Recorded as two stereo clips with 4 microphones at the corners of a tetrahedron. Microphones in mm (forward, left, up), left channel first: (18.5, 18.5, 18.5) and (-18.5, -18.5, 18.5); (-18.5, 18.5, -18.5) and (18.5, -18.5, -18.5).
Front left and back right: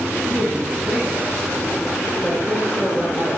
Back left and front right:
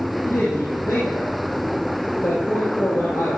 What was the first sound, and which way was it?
A woman speaking, 140° left.